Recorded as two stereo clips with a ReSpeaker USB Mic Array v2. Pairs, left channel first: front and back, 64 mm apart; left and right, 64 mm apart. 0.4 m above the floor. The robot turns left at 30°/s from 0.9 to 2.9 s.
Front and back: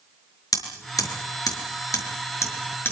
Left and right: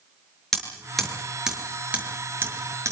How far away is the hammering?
About 6 m.